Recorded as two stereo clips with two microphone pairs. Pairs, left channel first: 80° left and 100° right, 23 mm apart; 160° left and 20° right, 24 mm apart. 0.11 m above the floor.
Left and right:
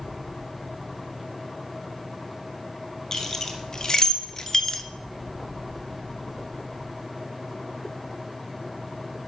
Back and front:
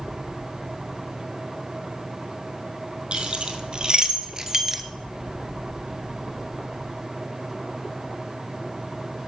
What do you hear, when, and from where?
3.1 s keys jangling: 15° left, 2 m; by 4.8 s 40° left, 0.9 m